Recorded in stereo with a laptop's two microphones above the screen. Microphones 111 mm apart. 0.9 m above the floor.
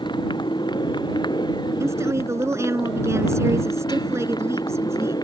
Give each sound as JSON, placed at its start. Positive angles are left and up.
{"t": 0.0, "sound": "a motorcycle", "side_deg": 45}
{"t": 1.8, "sound": "a woman speaking", "side_deg": -25}